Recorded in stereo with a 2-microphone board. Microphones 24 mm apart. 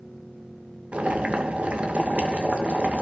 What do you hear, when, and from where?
0.9 s boiling: 70° right (ahead or behind), 2.5 m